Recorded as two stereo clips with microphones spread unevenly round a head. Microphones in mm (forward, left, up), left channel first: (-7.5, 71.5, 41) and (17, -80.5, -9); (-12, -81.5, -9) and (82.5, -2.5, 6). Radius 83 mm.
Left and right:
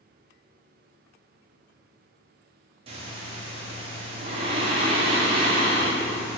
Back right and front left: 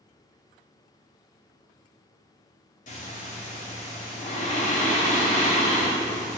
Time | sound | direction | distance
2.9 | breathing | 130° right | 2.5 m